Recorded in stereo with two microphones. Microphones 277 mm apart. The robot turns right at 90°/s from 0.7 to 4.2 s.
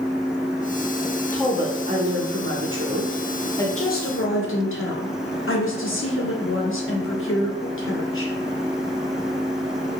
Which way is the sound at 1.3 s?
170° left.